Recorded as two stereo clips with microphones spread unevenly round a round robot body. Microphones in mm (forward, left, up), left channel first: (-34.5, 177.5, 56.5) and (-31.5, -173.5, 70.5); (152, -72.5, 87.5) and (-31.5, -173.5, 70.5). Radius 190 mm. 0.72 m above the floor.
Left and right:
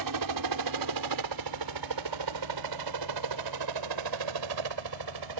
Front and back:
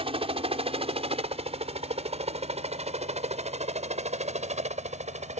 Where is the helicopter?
95° right.